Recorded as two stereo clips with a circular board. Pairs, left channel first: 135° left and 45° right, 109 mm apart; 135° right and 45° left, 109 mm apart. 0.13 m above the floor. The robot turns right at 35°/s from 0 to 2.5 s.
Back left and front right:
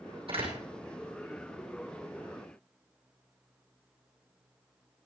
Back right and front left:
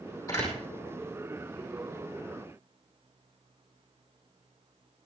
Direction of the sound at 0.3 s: 75° right.